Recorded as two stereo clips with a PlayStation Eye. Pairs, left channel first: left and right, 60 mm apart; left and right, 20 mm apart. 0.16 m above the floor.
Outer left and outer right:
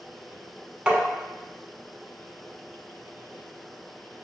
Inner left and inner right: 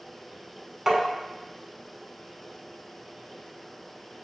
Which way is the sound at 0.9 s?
15° right (ahead or behind).